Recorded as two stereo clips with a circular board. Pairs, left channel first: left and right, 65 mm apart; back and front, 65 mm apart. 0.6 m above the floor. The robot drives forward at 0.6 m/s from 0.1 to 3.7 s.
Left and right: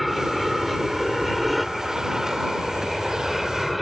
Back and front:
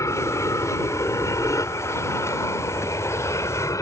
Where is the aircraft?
Straight behind.